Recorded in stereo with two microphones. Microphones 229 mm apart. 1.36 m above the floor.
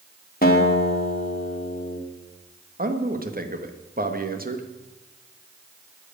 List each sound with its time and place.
0.4 s a guitar: 40° left (ahead or behind), 2.5 m
2.8 s a man speaking: 40° right (ahead or behind), 1.7 m